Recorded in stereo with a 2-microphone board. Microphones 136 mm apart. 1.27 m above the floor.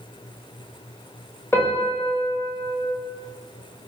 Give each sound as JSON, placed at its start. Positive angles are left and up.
{"t": 1.5, "sound": "a piano", "side_deg": 15, "distance_m": 1.0}